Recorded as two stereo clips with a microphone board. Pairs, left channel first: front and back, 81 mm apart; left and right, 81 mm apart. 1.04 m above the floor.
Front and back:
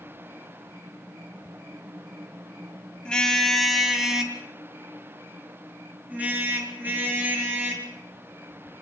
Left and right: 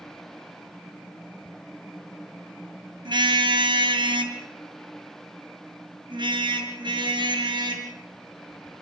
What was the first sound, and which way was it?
A car horn, 80° right.